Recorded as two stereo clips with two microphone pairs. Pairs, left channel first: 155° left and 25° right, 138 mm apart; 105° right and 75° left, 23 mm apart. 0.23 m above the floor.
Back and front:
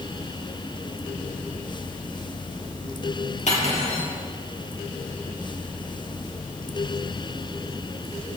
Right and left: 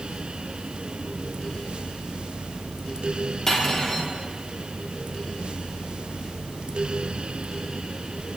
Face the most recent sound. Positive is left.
turn(degrees=-175)